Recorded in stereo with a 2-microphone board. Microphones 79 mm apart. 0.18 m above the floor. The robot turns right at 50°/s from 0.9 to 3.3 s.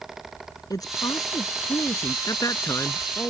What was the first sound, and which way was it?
A woman speaking, 75° left.